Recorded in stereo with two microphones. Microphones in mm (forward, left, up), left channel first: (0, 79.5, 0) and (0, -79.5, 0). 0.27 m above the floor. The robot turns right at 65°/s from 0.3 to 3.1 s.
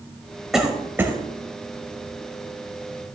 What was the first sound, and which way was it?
A cough, centre (ahead or behind).